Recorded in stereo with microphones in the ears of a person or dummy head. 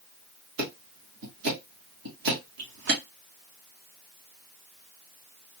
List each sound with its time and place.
0.6 s ticking: 60° right (ahead or behind), 1.2 m